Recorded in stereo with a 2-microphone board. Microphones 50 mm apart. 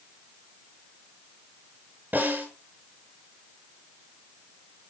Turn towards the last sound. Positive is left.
turn(degrees=-40)  # may be behind; listen again after turning